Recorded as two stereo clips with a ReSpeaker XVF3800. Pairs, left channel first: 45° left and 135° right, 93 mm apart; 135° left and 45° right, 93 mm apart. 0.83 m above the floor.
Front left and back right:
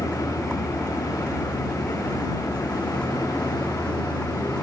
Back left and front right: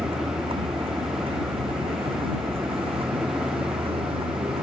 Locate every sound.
0.0 s a vehicle: 35° right